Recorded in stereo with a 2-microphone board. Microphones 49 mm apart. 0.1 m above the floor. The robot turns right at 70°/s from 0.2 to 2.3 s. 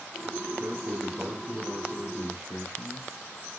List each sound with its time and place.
0.6 s a man speaking: 45° right, 3 m; by 3.1 s 75° left, 3 m